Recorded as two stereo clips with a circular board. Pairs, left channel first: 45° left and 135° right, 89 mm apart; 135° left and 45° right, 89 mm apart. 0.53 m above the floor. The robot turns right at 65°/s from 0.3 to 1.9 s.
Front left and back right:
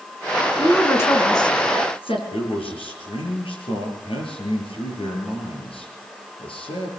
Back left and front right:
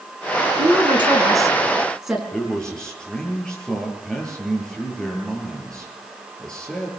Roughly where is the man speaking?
Ahead left.